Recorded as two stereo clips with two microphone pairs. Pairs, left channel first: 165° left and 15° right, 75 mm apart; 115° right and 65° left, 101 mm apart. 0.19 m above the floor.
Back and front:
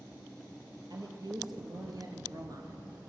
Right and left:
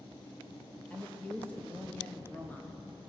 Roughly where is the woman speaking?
Ahead right.